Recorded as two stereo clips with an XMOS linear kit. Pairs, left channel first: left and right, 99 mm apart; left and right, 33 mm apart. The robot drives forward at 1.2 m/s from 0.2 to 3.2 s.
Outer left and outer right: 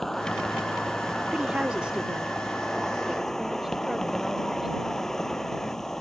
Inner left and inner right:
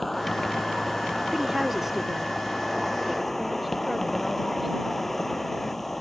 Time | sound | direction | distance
0.0 | an insect | 5° left (ahead or behind) | ?
1.3 | a woman speaking | 10° right (ahead or behind) | ?